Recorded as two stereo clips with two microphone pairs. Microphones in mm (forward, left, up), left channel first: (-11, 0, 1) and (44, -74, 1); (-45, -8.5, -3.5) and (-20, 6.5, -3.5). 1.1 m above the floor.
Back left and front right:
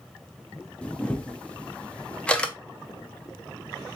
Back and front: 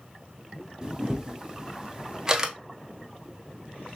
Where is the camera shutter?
55° left, 0.6 m.